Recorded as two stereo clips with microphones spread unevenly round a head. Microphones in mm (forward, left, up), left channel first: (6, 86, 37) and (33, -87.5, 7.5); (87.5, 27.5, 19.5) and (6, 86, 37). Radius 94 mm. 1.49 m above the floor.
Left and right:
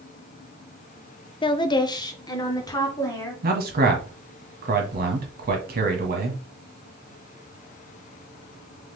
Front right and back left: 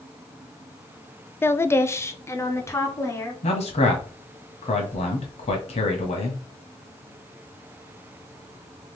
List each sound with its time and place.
1.4 s a woman speaking: 30° left, 0.5 m; by 3.3 s 25° left, 1.9 m
3.4 s a man speaking: 45° right, 1.5 m